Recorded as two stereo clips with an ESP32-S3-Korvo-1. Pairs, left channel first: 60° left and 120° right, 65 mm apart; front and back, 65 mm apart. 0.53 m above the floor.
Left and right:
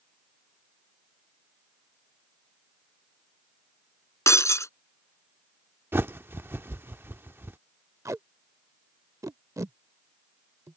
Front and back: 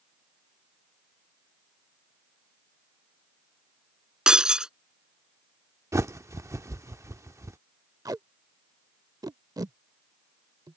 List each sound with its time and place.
4.3 s breaking glass: 100° left
5.9 s a bird: 165° right
8.1 s tape being pulled: 160° right